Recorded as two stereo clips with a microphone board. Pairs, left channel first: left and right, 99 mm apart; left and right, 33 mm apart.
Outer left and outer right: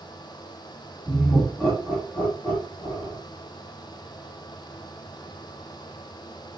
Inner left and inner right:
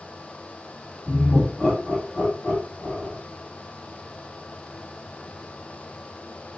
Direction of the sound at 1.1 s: 5° left (ahead or behind).